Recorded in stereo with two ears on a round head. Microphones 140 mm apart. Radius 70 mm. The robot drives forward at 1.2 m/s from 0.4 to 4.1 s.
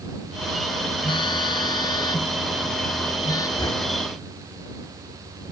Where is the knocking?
25° left (ahead or behind).